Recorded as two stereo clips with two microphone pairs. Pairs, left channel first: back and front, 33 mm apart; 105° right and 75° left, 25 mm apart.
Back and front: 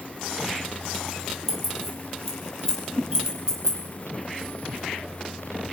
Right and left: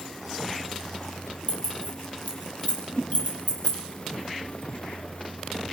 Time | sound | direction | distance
1.5 | keys jangling | 85° right | 8 m
2.9 | a whoosh | 35° right | 5.5 m